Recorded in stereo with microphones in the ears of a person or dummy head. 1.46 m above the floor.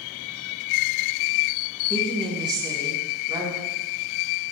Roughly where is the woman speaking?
Right.